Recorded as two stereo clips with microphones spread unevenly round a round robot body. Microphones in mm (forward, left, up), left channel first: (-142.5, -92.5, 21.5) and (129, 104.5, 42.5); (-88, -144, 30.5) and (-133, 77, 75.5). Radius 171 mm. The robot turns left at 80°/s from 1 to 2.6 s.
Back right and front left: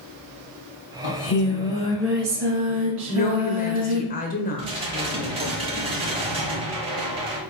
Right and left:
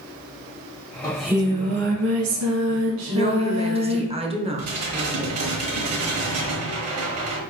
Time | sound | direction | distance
1.0 | singing | 155° right | 1.3 m
3.1 | a woman speaking | 170° left | 1.0 m
4.6 | dishes clattering | 110° left | 1.4 m